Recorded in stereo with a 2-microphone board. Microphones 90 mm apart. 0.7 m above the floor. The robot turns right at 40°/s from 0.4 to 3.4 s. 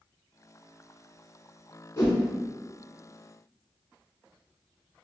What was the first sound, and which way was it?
A whoosh, 30° left (ahead or behind).